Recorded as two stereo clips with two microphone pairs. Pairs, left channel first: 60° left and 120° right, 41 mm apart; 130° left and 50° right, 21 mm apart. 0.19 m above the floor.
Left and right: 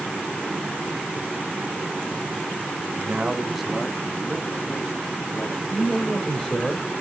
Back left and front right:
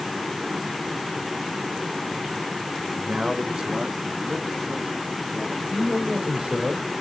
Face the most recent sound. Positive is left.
turn(degrees=-10)